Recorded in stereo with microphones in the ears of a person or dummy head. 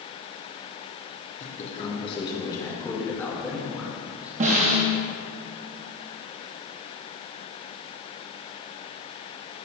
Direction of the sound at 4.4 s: 40° right (ahead or behind).